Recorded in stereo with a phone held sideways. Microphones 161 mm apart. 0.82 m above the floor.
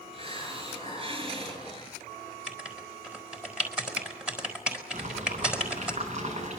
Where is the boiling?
45° right (ahead or behind), 8.5 m.